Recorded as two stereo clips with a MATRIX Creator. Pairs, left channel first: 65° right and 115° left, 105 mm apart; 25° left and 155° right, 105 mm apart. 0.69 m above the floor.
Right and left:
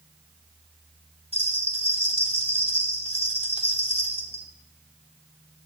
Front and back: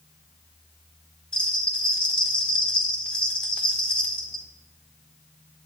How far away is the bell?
About 1.8 m.